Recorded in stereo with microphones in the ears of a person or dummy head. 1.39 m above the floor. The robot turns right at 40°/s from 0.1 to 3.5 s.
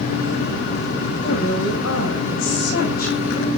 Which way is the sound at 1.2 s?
60° left.